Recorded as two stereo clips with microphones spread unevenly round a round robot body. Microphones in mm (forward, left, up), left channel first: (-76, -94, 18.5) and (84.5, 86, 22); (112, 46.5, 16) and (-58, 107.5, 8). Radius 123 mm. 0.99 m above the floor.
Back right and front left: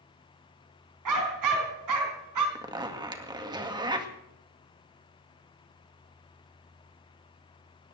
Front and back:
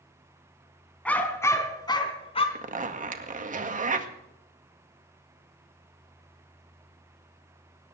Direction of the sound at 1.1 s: 60° left.